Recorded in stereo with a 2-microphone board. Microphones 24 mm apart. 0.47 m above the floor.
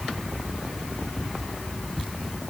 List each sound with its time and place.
Only background noise.